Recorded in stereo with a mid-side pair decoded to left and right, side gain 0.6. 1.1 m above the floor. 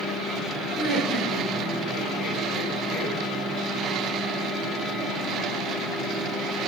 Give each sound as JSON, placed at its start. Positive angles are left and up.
{"t": 0.8, "sound": "laughter", "azimuth_deg": 50, "distance_m": 4.0}